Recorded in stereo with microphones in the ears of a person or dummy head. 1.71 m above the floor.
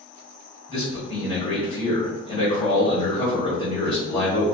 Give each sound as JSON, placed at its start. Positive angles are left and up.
{"t": 0.7, "sound": "a man speaking", "side_deg": 30, "distance_m": 1.6}